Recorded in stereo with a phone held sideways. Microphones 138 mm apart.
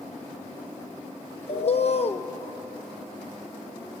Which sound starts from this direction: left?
A bird, at 1.5 s.